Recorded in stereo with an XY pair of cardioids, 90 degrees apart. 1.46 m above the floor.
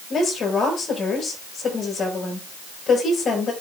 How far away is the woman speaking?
About 7.5 m.